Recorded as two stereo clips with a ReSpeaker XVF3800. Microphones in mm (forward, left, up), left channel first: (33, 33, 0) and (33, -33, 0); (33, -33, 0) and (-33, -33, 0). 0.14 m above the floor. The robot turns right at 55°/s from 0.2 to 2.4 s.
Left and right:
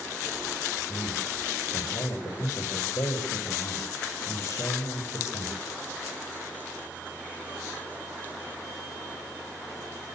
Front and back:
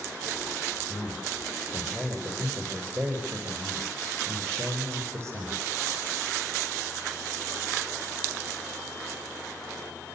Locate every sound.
0.9 s a man speaking: 50° left, 8.5 m; by 5.6 s 135° left, 8.5 m